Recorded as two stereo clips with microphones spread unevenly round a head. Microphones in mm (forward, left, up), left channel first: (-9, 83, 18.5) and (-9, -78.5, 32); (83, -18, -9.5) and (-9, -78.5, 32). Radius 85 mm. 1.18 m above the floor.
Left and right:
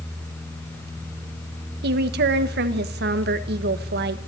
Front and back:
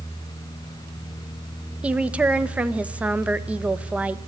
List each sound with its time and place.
1.8 s a woman speaking: 60° right, 1.5 m